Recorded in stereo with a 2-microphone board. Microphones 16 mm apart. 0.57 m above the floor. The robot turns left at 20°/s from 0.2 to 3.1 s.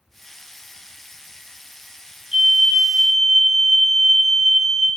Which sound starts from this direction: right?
A fire alarm, at 2.3 s.